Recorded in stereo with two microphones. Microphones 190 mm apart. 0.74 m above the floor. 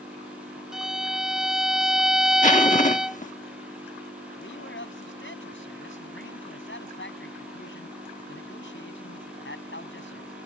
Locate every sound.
0.7 s a violin: 5° right (ahead or behind)
2.4 s a zipper: 40° left (ahead or behind)
4.4 s a man speaking: 70° left (ahead or behind)